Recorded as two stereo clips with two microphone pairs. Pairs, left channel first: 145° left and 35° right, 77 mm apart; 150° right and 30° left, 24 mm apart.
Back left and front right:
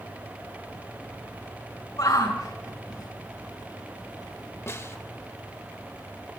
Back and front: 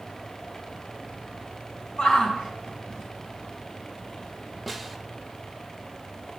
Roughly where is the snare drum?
Behind left.